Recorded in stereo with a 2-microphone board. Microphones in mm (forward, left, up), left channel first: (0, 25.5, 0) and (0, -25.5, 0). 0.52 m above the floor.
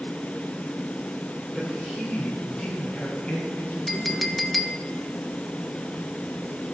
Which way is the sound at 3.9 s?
Centre (ahead or behind).